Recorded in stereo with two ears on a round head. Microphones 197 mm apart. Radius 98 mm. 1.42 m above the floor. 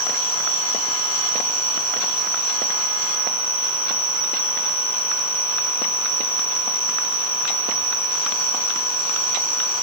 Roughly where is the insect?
Left.